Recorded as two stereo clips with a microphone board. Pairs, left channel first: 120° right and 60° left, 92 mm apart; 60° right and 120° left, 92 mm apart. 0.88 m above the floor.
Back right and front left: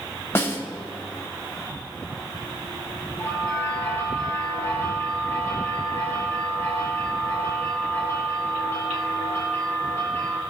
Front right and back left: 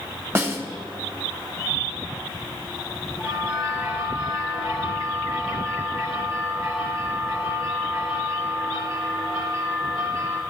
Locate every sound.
0.3 s a snare drum: straight behind, 1.2 m
3.2 s a bell: 50° right, 3.5 m